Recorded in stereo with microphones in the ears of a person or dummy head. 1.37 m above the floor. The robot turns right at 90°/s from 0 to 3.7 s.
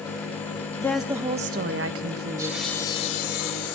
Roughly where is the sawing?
Ahead.